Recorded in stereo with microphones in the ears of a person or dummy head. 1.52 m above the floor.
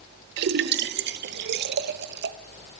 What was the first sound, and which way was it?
A splash, 65° right (ahead or behind).